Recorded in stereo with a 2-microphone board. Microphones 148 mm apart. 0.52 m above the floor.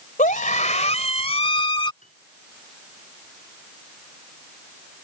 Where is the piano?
55° left (ahead or behind).